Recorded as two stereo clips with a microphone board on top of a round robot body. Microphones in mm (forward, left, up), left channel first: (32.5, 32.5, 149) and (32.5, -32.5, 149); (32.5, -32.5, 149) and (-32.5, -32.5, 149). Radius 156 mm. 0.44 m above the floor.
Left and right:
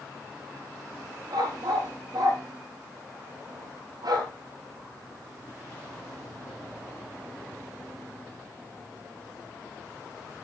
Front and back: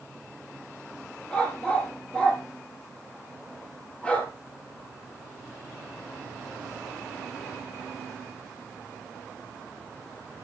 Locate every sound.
1.3 s a dog barking: 75° right, 5.5 m